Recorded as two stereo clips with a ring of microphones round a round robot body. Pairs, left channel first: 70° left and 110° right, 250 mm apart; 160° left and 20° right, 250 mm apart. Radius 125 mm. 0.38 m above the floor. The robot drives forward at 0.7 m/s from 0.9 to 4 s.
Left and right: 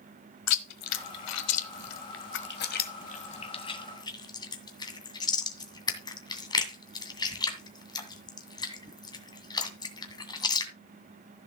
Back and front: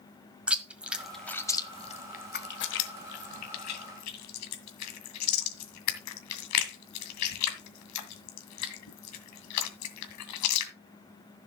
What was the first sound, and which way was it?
Chewing, 65° left.